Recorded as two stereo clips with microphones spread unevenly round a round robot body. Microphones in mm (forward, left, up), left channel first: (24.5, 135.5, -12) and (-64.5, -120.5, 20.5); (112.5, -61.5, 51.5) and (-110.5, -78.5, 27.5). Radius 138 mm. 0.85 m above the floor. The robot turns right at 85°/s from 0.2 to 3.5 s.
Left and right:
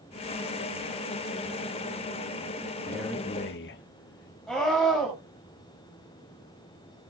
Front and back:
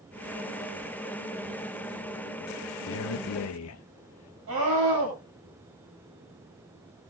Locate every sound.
2.9 s a man speaking: 30° right, 0.7 m; by 4.4 s 25° left, 0.7 m
4.5 s a scream: 160° left, 6 m